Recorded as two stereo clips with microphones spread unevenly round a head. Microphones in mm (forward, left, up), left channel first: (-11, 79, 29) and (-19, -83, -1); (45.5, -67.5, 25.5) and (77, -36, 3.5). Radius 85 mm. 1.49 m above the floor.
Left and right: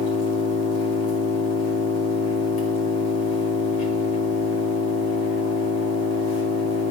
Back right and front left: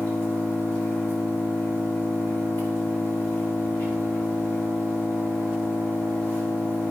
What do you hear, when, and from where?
0.0 s an engine running: 115° left, 2.5 m